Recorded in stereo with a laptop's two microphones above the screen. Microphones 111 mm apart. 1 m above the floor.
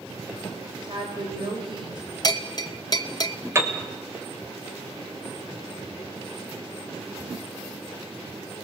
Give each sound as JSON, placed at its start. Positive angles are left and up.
{"t": 0.8, "sound": "a woman speaking", "side_deg": -45, "distance_m": 4.0}
{"t": 2.2, "sound": "a bell", "side_deg": 40, "distance_m": 0.9}
{"t": 3.5, "sound": "a piano", "side_deg": -25, "distance_m": 2.5}